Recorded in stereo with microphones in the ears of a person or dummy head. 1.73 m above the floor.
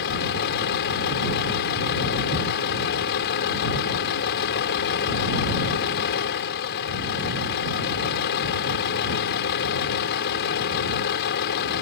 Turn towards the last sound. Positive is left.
turn(degrees=70)  # may be behind; listen again after turning